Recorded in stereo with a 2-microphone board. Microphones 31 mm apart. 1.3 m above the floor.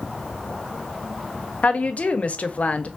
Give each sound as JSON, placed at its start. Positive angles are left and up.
{"t": 1.6, "sound": "a woman speaking", "side_deg": 50, "distance_m": 0.6}